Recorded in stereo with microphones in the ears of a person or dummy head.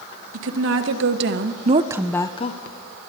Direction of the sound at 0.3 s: 75° right (ahead or behind).